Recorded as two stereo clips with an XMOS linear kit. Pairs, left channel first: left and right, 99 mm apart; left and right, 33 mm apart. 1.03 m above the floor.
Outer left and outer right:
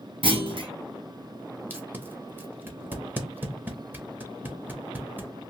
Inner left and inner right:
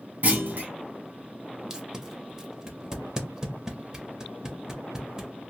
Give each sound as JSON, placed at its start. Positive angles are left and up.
{"t": 0.2, "sound": "a clunk", "side_deg": -60, "distance_m": 0.8}
{"t": 1.7, "sound": "tape being pulled", "side_deg": -20, "distance_m": 0.6}